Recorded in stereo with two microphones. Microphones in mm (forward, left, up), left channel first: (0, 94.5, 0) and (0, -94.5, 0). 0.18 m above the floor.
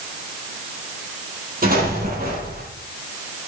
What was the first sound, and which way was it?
An explosion, 50° right (ahead or behind).